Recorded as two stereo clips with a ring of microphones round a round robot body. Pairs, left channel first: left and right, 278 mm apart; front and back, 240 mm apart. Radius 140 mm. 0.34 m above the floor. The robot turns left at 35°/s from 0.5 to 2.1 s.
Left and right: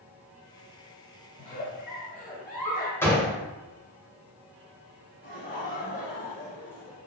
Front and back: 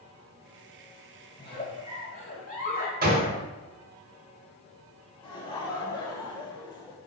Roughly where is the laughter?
Ahead left.